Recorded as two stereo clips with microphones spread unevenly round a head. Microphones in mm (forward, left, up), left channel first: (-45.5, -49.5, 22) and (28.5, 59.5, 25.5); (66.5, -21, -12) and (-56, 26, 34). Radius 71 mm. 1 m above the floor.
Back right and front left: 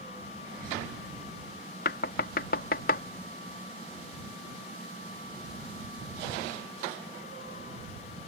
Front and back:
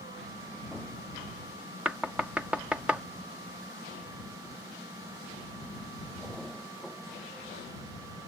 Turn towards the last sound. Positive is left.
turn(degrees=-115)